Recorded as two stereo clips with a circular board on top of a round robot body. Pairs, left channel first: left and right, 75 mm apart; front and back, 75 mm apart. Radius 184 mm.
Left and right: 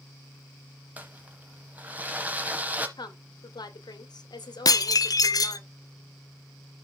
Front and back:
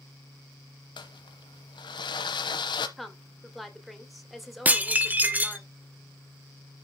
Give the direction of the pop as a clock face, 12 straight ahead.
No pop in this recording.